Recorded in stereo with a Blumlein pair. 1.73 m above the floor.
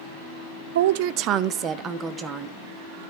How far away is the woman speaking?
About 0.5 m.